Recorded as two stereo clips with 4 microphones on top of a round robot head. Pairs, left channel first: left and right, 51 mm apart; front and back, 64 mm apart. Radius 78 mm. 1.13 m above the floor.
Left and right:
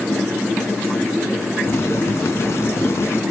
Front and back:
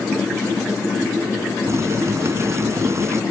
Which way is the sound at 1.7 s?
140° left.